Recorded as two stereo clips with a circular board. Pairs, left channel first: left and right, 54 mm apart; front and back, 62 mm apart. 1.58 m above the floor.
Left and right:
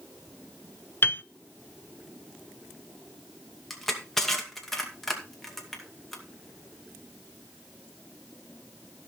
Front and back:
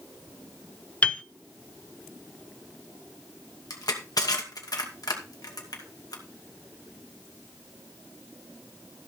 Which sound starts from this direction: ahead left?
A piano, at 1.0 s.